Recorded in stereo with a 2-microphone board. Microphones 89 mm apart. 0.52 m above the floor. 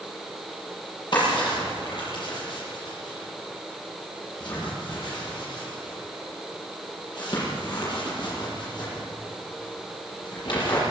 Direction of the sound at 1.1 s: 55° left (ahead or behind).